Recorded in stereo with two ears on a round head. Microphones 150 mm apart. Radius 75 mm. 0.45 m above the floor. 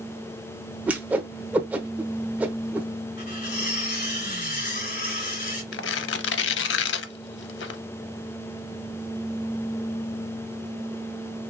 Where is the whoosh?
10° right (ahead or behind), 0.8 m.